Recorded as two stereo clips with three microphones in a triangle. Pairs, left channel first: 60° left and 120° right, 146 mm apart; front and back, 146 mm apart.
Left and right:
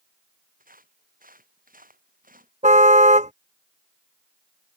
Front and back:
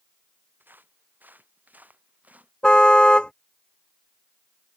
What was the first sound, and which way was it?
Footsteps, 105° right.